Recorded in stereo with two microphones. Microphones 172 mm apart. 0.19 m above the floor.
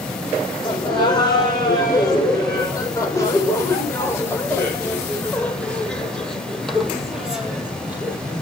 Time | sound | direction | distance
0.6 | laughter | 25° left (ahead or behind) | 8 m